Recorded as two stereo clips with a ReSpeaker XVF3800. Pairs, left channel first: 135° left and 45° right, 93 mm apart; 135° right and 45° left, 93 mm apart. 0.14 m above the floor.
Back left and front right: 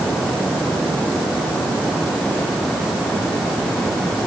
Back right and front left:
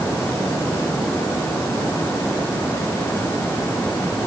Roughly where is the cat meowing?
I don't hear a cat meowing.